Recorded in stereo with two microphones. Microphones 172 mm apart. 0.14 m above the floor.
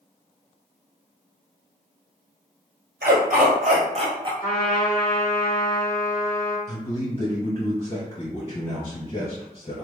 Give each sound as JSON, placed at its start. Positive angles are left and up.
{"t": 3.0, "sound": "a dog barking", "side_deg": -75, "distance_m": 1.1}
{"t": 4.4, "sound": "a trumpet", "side_deg": 25, "distance_m": 1.8}
{"t": 6.7, "sound": "a man speaking", "side_deg": 30, "distance_m": 1.9}